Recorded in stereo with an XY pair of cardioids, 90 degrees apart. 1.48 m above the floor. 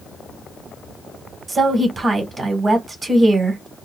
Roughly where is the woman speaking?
Ahead right.